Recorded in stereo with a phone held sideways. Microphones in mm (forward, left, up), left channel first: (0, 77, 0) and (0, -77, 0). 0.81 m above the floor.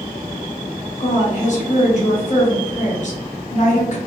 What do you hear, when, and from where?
1.0 s a woman speaking: 50° left (ahead or behind), 0.9 m